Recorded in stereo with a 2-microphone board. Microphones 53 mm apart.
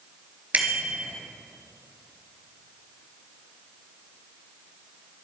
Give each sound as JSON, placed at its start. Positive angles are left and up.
{"t": 0.5, "sound": "a bicycle bell", "side_deg": -30, "distance_m": 3.0}